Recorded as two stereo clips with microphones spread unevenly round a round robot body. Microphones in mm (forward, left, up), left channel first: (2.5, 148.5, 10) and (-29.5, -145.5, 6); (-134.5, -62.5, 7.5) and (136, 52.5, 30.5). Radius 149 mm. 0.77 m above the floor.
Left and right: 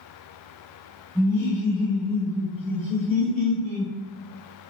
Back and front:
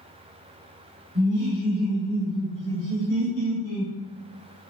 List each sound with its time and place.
1.1 s laughter: 15° right, 1.2 m; by 3.9 s 85° right, 2.5 m